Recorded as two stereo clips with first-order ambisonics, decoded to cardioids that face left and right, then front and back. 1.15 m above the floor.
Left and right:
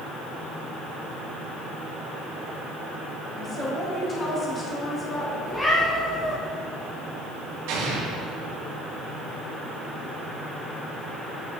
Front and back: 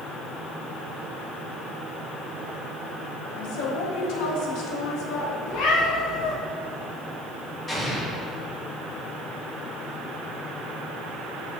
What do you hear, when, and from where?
3.4 s a woman speaking: 20° left, 1.6 m
5.5 s a cat meowing: 15° left, 2.0 m
7.7 s an explosion: 80° right, 1.7 m